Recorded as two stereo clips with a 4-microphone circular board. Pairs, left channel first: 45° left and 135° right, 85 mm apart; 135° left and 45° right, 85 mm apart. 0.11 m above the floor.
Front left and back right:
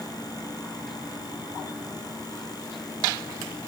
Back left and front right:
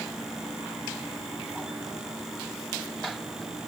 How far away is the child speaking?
I don't hear a child speaking.